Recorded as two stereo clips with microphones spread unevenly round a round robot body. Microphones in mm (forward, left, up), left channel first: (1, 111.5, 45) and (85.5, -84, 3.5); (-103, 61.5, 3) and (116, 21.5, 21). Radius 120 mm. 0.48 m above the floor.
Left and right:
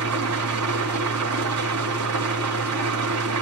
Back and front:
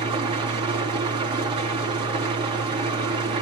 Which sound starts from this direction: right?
An engine running, at 0.0 s.